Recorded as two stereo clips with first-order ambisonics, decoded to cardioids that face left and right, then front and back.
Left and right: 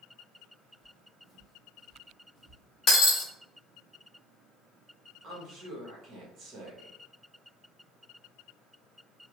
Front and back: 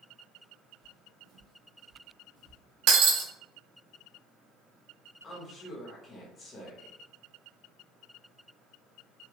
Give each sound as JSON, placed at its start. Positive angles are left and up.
{"t": 0.8, "sound": "footsteps", "azimuth_deg": -170, "distance_m": 1.8}
{"t": 2.9, "sound": "breaking glass", "azimuth_deg": 155, "distance_m": 1.0}
{"t": 5.2, "sound": "a woman speaking", "azimuth_deg": -55, "distance_m": 1.0}